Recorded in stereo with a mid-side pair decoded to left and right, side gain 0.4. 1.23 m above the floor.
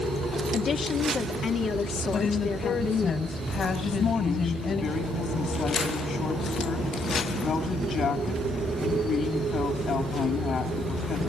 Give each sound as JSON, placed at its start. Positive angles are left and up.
{"t": 0.5, "sound": "a woman speaking", "azimuth_deg": 60, "distance_m": 2.5}
{"t": 2.1, "sound": "a woman speaking", "azimuth_deg": 55, "distance_m": 6.0}
{"t": 3.8, "sound": "a woman speaking", "azimuth_deg": 60, "distance_m": 9.5}